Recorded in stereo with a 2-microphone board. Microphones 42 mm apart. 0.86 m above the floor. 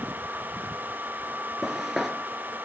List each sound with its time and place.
1.6 s footsteps: 10° right (ahead or behind), 0.8 m